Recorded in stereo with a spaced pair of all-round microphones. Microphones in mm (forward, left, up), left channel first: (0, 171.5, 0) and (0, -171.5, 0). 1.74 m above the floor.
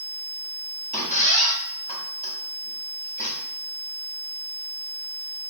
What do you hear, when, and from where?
0.9 s a squeak: 20° left (ahead or behind), 1.0 m